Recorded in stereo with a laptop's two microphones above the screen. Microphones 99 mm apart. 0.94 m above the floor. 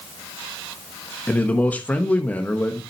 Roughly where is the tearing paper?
No tearing paper in this recording.